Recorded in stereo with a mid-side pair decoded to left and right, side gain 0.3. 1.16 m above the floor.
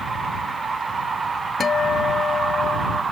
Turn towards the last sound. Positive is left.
turn(degrees=60)